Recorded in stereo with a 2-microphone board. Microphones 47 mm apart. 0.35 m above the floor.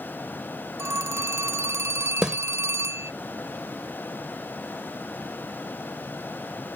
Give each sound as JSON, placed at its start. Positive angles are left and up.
{"t": 0.8, "sound": "a phone ringing", "side_deg": -70}
{"t": 2.2, "sound": "a snare drum", "side_deg": -15}